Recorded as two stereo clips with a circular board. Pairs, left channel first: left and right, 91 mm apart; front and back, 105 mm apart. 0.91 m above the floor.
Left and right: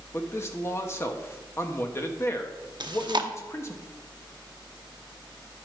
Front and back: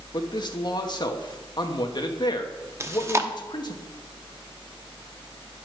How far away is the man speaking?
About 1.1 m.